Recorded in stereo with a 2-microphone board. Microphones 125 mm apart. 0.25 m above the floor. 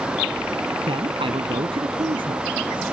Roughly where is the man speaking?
Right.